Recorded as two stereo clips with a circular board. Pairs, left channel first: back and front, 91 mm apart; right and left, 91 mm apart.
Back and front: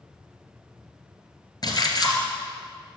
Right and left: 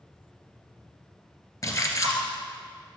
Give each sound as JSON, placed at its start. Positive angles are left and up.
{"t": 1.6, "sound": "a splash", "azimuth_deg": -140, "distance_m": 2.0}